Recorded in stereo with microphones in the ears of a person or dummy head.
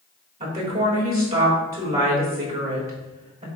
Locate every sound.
0.4 s a woman speaking: 30° right (ahead or behind), 3.5 m